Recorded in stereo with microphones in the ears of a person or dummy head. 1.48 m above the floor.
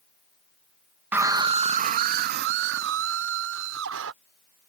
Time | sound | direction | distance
1.1 | a scream | 5° right (ahead or behind) | ?